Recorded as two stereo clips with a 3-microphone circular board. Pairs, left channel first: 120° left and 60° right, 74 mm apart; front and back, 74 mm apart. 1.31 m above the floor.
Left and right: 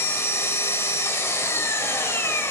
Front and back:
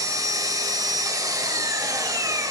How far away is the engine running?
About 1.7 m.